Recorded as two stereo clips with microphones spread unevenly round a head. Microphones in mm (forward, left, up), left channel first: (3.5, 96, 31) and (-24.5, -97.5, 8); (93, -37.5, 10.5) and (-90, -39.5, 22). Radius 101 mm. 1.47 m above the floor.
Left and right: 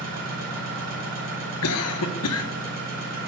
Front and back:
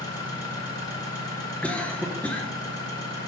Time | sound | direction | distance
0.0 | an engine running | 70° right | 4.5 m
1.6 | a cough | 85° left | 0.9 m